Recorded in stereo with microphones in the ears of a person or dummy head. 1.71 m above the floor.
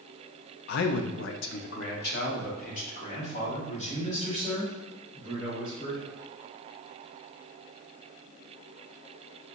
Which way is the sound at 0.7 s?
65° left (ahead or behind).